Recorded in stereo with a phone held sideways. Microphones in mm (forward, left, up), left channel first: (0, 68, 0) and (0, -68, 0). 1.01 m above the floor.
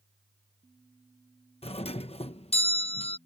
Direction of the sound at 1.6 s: 45° left (ahead or behind).